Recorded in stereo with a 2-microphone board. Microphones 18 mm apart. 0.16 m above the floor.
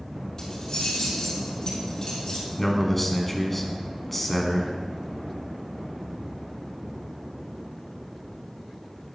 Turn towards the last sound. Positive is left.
turn(degrees=10)  # may be behind; listen again after turning